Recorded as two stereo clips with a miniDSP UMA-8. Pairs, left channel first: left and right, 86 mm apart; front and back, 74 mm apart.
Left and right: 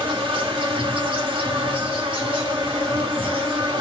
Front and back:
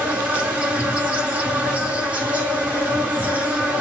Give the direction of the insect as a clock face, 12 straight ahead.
4 o'clock.